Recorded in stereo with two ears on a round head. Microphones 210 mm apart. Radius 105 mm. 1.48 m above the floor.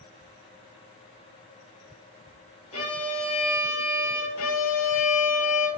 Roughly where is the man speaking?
No man speaking in this recording.